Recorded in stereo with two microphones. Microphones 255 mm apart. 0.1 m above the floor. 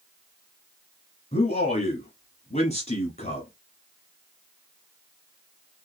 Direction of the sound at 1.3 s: 25° left (ahead or behind).